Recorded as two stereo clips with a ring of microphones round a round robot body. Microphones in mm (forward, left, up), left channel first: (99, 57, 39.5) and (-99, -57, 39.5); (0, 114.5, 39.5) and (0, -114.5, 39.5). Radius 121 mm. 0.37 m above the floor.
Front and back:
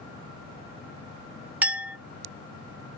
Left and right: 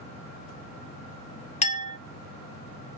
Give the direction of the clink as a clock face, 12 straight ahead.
8 o'clock.